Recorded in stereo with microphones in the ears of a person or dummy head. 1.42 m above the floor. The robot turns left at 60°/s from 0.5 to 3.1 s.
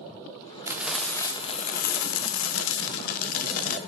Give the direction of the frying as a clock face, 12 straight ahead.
6 o'clock.